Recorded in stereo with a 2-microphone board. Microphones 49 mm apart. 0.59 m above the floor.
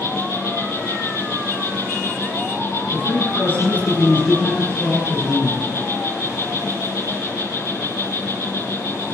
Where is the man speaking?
40° left (ahead or behind), 7.5 m.